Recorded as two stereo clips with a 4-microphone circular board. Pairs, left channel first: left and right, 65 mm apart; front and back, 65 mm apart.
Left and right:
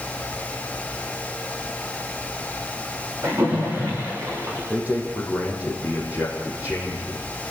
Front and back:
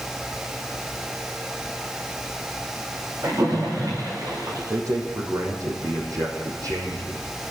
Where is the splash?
135° right, 8.5 m.